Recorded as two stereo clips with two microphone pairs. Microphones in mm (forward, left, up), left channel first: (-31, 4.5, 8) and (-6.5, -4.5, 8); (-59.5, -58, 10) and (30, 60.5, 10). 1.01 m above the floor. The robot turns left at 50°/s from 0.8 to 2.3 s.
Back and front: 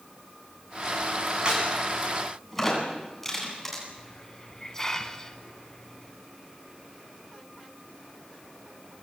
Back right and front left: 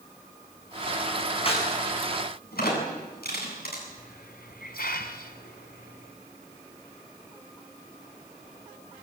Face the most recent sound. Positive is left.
turn(degrees=-130)